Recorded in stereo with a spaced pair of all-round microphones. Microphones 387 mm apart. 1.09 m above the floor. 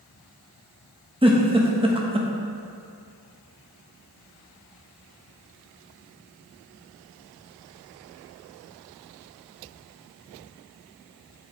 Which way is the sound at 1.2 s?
15° right (ahead or behind).